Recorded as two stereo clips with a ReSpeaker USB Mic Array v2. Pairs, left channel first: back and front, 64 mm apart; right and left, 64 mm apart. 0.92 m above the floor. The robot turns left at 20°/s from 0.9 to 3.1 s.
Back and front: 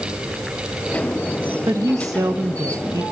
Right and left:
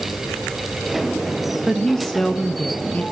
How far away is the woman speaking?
About 0.8 m.